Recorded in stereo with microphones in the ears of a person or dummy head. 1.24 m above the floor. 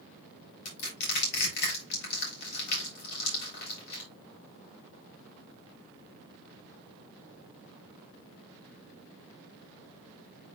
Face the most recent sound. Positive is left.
turn(degrees=65)  # may be behind; listen again after turning